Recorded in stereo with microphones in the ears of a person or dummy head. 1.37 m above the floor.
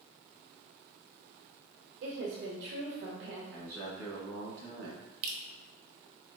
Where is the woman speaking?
60° right (ahead or behind), 1.0 m.